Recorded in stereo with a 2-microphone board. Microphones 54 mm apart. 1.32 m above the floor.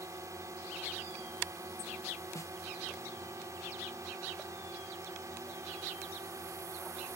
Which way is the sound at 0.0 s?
85° right.